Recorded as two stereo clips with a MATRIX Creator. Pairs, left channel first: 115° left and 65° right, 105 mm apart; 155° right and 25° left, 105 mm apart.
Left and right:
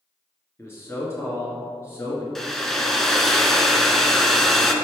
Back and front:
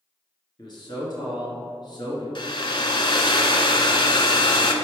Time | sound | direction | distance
0.6 | a man speaking | 170° left | 1.8 m
2.4 | a hair dryer | 160° right | 0.7 m